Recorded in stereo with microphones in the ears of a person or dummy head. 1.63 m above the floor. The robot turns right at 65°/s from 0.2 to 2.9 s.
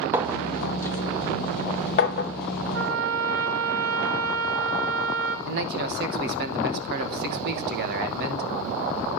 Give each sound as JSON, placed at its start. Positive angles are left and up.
{"t": 0.1, "sound": "a clink", "side_deg": -15, "distance_m": 0.8}
{"t": 2.7, "sound": "a trumpet", "side_deg": -70, "distance_m": 1.4}
{"t": 5.5, "sound": "a man speaking", "side_deg": -60, "distance_m": 1.1}